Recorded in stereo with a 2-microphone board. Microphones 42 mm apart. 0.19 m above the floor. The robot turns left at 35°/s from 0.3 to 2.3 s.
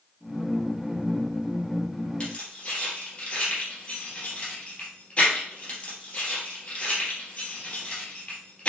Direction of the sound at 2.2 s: 25° left (ahead or behind).